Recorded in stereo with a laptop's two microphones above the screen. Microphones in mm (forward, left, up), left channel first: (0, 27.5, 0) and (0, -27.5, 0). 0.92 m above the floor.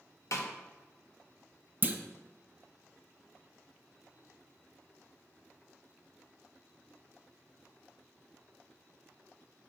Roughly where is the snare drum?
Left.